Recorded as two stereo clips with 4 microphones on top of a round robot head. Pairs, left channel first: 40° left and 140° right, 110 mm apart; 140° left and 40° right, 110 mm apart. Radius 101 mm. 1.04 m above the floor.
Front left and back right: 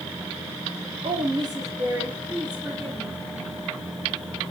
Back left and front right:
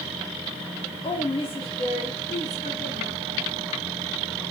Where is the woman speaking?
Straight behind, 2.5 m; by 3.1 s 120° left, 2.5 m.